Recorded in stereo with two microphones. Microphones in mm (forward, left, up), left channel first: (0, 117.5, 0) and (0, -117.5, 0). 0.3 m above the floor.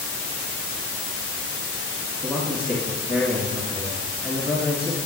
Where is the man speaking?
5° right (ahead or behind), 3 m.